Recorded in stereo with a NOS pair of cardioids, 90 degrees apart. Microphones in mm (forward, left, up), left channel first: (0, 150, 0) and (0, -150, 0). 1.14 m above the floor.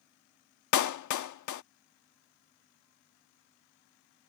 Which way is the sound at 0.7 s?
70° left.